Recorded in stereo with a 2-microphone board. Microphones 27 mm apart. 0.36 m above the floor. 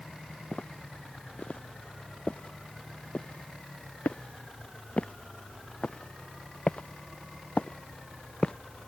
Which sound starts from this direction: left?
Footsteps, at 0.5 s.